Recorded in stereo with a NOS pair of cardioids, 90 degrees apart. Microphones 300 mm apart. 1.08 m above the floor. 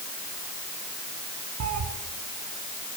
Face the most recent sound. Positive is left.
turn(degrees=-65)